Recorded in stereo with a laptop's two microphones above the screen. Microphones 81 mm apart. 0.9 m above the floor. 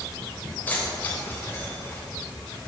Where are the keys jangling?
20° left (ahead or behind), 3 m; by 2.0 s 25° left (ahead or behind), 4.5 m.